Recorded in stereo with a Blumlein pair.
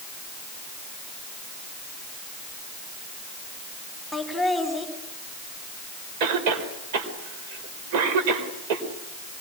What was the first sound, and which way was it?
Laughter, straight ahead.